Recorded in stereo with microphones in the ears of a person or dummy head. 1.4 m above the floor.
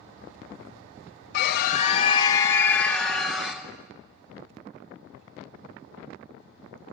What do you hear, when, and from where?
1.3 s a scream: 60° left (ahead or behind), 0.8 m; by 3.6 s 5° right (ahead or behind), 1.6 m